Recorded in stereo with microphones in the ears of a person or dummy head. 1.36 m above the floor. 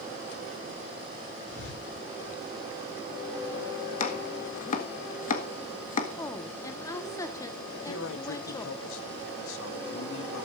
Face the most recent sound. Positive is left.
turn(degrees=80)